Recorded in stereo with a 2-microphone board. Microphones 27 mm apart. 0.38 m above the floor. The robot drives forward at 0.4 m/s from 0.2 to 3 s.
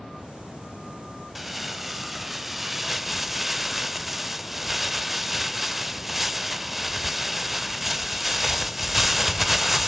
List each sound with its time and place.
1.4 s crumpling: 5° right (ahead or behind), 1.2 m